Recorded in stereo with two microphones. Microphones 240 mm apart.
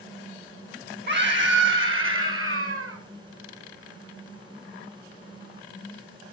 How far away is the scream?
About 2.5 m.